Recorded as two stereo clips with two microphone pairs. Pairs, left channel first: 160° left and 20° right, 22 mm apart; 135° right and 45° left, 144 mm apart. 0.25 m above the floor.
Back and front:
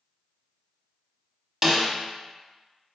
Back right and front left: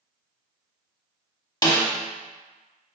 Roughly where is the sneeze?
I don't hear a sneeze.